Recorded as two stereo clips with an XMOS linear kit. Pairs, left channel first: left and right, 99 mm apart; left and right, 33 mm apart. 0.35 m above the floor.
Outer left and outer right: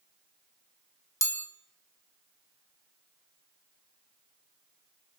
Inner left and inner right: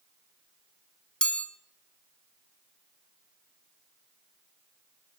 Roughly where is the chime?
Left.